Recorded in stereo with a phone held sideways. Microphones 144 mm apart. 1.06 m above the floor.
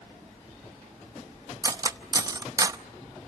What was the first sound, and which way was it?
Cutlery clinking, 25° right (ahead or behind).